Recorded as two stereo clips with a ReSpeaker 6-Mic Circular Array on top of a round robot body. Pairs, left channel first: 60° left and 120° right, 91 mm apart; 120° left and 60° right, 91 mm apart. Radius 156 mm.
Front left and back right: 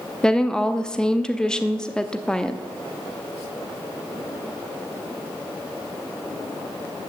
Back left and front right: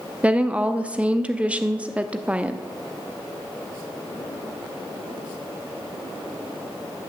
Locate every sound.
0.2 s a woman speaking: 10° right, 1.1 m